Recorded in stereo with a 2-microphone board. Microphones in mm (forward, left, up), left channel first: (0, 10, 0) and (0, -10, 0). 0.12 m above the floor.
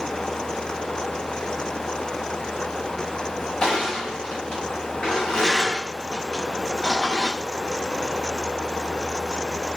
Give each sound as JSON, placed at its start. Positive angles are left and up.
{"t": 3.6, "sound": "crushing", "side_deg": 70, "distance_m": 3.0}